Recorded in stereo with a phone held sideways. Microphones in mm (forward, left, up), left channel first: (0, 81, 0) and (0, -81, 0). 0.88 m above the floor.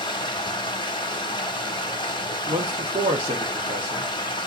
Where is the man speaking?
30° right (ahead or behind), 1.6 m.